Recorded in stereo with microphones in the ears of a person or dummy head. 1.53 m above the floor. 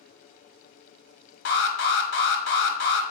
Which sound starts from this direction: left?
An alarm, at 1.4 s.